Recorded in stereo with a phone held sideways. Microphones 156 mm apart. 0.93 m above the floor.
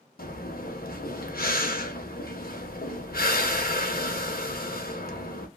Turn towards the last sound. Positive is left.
turn(degrees=85)